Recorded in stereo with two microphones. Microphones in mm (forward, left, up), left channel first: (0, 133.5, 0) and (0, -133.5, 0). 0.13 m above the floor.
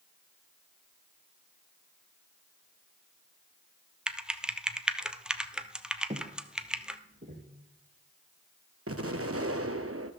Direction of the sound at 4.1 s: 5° right (ahead or behind).